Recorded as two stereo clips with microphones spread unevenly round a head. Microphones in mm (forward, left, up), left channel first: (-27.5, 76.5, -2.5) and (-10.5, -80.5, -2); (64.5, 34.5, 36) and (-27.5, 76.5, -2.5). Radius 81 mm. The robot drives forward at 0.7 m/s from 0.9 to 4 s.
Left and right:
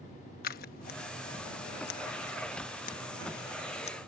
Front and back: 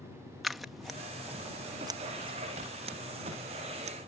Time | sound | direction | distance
0.4 | scissors | 60° left | ?